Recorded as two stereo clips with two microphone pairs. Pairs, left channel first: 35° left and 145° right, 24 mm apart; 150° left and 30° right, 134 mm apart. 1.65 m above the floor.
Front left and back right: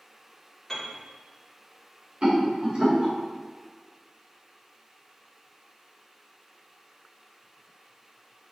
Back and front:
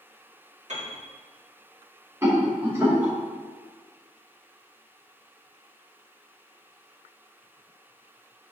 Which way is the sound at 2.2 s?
100° right.